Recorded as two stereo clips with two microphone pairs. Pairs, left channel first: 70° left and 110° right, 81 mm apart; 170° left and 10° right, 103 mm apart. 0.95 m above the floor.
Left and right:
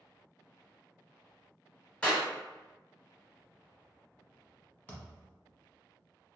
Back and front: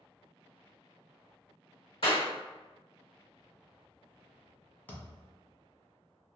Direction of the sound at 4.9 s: 120° left.